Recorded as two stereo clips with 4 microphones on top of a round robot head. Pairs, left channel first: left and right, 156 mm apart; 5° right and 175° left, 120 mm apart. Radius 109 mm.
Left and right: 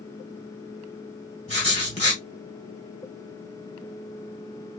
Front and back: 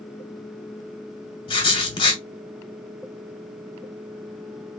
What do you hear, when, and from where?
1.5 s writing: 35° left, 1.5 m